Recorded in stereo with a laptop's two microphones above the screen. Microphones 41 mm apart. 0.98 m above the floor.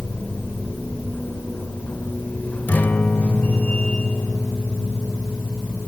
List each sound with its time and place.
0.0 s a machine running: 40° left (ahead or behind), 2.5 m
2.7 s a guitar: 50° left (ahead or behind), 1.1 m